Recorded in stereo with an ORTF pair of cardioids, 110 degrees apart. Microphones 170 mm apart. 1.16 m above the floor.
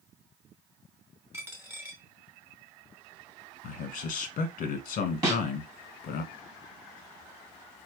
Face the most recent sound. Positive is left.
turn(degrees=-20)